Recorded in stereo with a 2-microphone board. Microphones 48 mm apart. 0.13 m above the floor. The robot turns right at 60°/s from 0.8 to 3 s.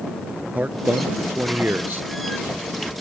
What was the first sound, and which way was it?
A man speaking, 130° right.